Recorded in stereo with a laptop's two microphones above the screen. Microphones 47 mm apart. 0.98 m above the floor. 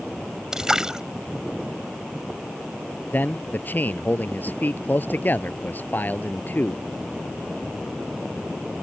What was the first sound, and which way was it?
A splash, 10° right (ahead or behind).